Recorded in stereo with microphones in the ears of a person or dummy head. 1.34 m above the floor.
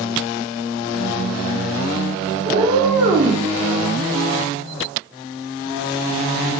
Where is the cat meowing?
25° right (ahead or behind), 0.7 m.